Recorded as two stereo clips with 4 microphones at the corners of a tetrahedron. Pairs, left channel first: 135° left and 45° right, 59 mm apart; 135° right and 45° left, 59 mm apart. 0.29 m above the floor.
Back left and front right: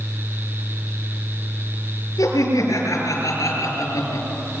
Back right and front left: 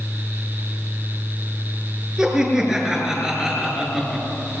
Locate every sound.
2.2 s laughter: 125° left, 6 m